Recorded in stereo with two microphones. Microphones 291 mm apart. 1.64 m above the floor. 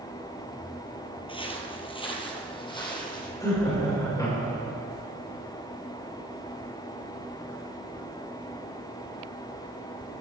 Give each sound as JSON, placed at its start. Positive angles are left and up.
{"t": 1.3, "sound": "footsteps", "side_deg": 20, "distance_m": 1.7}
{"t": 3.4, "sound": "laughter", "side_deg": 10, "distance_m": 6.0}